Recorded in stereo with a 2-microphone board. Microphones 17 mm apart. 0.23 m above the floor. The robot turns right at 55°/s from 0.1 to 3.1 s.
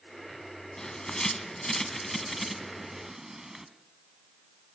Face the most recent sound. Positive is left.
turn(degrees=-25)  # may be behind; listen again after turning